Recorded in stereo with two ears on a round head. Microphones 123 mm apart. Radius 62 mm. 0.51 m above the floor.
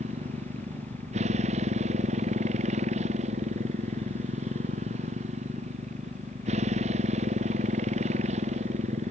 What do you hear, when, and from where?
0.0 s a motorcycle: 50° right (ahead or behind)